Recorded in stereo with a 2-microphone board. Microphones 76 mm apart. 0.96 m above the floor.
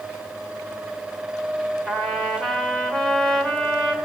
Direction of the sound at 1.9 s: 10° left (ahead or behind).